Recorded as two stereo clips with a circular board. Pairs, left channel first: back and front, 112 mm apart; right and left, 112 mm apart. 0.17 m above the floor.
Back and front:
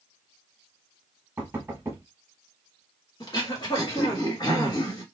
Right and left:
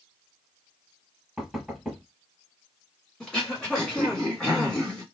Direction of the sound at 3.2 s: 170° right.